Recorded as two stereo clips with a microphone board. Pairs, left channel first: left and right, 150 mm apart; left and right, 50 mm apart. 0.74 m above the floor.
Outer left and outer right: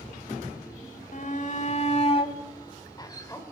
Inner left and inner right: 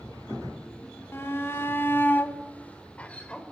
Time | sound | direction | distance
1.1 | a shout | 65° left (ahead or behind) | 2.5 m